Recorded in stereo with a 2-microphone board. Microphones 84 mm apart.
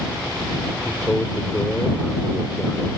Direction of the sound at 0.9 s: 10° left (ahead or behind).